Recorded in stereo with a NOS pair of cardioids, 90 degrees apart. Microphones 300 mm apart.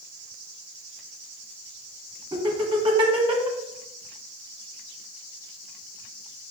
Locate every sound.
2.3 s laughter: 15° right, 1.4 m